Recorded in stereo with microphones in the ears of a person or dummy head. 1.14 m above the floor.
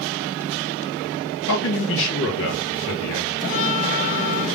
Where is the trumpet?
55° left (ahead or behind), 2.0 m.